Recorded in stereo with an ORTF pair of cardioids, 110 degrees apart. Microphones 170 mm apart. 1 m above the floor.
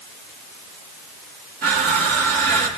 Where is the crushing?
60° right, 4 m.